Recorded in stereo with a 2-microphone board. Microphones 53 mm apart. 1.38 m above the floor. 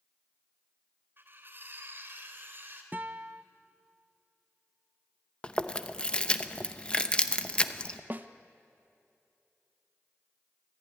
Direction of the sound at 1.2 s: 45° right (ahead or behind).